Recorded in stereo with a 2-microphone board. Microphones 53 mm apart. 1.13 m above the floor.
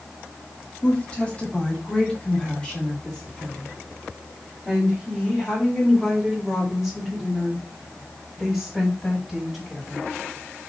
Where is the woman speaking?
25° left (ahead or behind), 2.5 m; by 10.0 s 5° left (ahead or behind), 7 m.